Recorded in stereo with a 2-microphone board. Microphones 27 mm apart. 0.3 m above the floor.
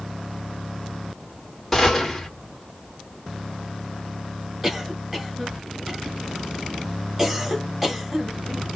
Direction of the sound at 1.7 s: 10° left (ahead or behind).